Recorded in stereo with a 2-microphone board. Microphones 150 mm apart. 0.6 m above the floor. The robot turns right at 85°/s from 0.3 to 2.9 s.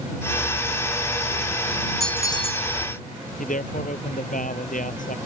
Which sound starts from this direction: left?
A man speaking, at 3.4 s.